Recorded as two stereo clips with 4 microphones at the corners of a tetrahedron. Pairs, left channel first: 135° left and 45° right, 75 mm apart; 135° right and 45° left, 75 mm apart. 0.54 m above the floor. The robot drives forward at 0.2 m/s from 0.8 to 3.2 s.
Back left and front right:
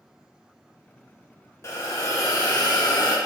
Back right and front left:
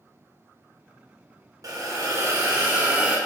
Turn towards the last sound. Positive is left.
turn(degrees=120)